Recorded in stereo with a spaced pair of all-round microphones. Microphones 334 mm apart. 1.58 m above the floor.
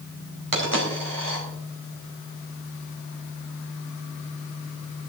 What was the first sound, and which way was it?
A dropped coin, 70° right (ahead or behind).